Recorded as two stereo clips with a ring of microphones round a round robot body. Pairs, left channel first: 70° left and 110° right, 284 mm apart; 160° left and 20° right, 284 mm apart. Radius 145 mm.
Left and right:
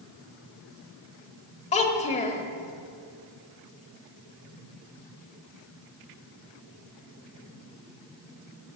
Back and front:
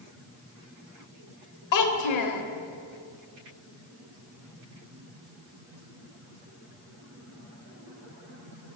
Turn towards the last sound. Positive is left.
turn(degrees=135)